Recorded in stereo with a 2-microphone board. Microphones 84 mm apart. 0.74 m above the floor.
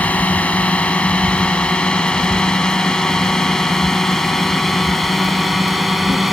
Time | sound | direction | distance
0.0 | a drone | 15° left (ahead or behind) | ?